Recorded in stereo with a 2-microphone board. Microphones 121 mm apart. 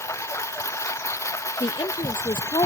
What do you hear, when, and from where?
0.0 s a lawn mower: 25° left (ahead or behind)
1.6 s a woman speaking: 40° left (ahead or behind)